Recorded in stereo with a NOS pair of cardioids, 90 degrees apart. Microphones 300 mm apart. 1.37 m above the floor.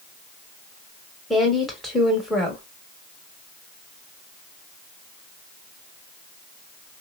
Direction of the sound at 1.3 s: Straight ahead.